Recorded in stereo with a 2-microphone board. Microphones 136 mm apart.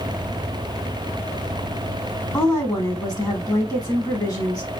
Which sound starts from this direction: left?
A woman speaking, at 2.3 s.